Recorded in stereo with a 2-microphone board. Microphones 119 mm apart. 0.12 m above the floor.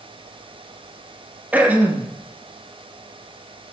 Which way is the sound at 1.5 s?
15° right (ahead or behind).